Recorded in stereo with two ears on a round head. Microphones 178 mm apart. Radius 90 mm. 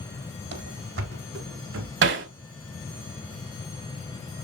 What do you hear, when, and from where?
0.5 s running footsteps: 60° right (ahead or behind), 1.3 m; by 1.9 s 70° right (ahead or behind), 3 m
2.0 s hammering: 60° right (ahead or behind), 1.8 m